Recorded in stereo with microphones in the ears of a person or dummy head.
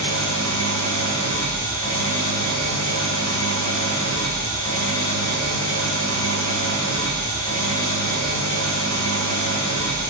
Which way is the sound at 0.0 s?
20° left (ahead or behind).